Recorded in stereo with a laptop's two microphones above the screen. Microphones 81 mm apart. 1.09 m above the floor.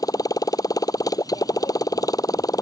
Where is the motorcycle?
50° left (ahead or behind).